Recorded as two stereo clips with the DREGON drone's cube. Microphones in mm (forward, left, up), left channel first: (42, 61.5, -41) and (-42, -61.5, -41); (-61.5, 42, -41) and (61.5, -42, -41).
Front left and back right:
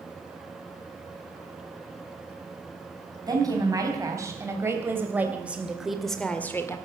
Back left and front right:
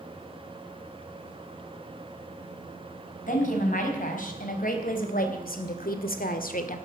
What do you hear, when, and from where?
3.3 s a woman speaking: 170° left, 4.5 m; by 6.8 s 125° left, 1.7 m